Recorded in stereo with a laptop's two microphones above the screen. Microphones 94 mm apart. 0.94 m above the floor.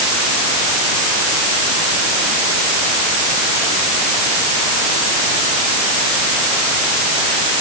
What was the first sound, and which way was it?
Only background noise.